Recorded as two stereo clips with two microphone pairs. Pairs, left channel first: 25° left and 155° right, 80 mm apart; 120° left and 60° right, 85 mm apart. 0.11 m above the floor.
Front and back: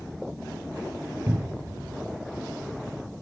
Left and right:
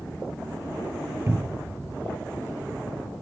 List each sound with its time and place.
1.3 s a cupboard door: 110° right, 0.6 m